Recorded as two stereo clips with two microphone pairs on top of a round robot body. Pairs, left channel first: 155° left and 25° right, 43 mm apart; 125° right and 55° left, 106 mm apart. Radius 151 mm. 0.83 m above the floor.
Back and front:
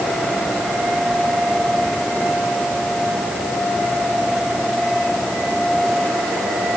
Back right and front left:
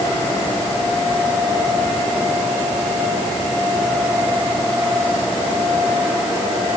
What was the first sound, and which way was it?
Only background noise.